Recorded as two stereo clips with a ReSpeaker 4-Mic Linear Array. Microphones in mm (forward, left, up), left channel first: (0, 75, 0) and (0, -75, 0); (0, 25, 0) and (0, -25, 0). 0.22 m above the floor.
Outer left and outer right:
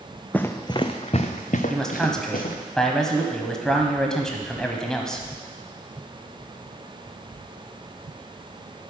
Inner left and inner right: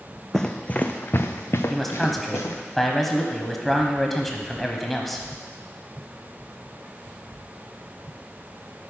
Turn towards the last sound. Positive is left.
turn(degrees=5)  # may be behind; listen again after turning